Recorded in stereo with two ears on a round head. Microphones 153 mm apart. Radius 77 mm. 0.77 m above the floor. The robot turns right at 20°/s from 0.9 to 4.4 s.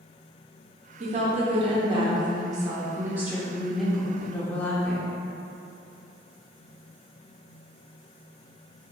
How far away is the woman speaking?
About 0.6 m.